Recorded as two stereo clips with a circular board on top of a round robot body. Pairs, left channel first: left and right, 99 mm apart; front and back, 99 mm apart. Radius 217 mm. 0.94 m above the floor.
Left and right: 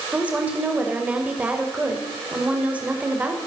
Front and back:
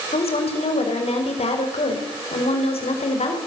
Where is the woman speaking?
15° right, 5 m.